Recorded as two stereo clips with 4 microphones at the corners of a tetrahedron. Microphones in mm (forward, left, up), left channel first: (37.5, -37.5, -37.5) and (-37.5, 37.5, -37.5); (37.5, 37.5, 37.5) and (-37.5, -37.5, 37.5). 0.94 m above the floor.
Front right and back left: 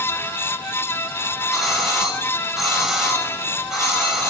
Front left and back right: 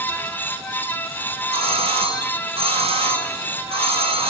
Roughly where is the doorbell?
Behind right.